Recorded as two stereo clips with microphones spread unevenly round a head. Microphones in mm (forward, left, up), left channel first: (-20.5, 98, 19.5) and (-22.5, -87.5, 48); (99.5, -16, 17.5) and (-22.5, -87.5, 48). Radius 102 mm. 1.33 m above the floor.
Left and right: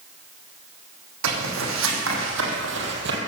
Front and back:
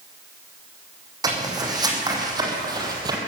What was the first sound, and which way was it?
Footsteps, 95° right.